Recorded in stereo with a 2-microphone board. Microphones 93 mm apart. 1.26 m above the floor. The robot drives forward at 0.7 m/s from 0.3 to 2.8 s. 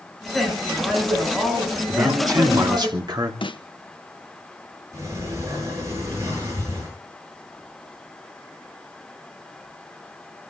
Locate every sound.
0.3 s a woman speaking: centre (ahead or behind), 9 m
1.9 s a man speaking: 40° right (ahead or behind), 2.5 m; by 3.3 s 50° right (ahead or behind), 2 m
3.4 s a snare drum: 65° left (ahead or behind), 1.1 m
4.9 s a sliding door: 35° right (ahead or behind), 10 m